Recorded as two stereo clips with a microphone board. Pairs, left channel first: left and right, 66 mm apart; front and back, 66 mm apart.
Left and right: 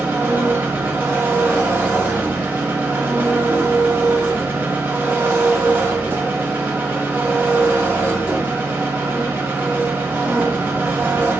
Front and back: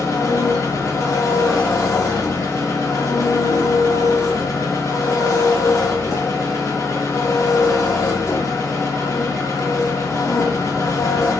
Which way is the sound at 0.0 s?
30° right.